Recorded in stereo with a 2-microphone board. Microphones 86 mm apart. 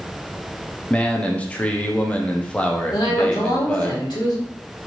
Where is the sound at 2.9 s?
60° left (ahead or behind), 1.8 m.